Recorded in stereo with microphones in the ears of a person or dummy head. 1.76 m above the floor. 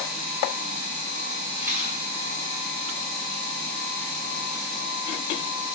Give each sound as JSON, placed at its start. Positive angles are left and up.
{"t": 1.6, "sound": "a rattle", "side_deg": -15, "distance_m": 3.5}